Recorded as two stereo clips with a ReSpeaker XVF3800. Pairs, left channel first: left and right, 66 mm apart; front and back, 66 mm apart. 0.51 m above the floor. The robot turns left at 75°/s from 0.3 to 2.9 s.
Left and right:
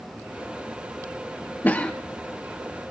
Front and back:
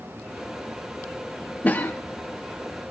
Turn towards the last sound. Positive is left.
turn(degrees=-45)